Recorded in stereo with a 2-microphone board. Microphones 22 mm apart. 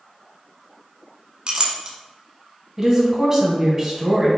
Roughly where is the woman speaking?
Right.